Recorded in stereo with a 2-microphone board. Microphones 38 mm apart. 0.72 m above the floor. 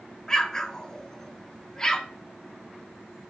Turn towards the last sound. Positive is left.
turn(degrees=15)  # may be behind; listen again after turning